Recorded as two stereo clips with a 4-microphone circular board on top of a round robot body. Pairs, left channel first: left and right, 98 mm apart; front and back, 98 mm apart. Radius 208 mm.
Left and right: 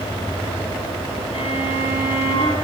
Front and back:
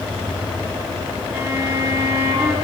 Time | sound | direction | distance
1.3 | a violin | 115° left | 7 m